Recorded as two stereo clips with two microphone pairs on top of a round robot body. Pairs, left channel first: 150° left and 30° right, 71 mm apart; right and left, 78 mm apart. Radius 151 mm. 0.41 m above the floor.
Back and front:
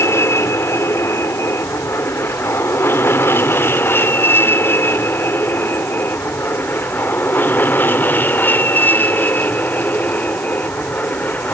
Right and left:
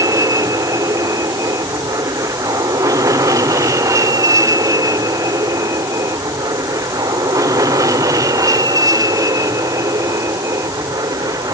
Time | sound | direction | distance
0.0 | an aircraft | 110° left | ?